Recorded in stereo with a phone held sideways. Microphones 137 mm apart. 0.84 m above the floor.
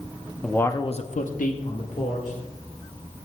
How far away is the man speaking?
About 0.9 m.